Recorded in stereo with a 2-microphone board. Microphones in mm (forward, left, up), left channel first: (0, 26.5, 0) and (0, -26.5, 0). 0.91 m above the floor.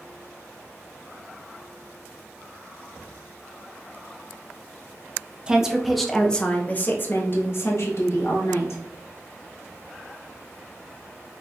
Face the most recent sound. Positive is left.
turn(degrees=65)  # may be behind; listen again after turning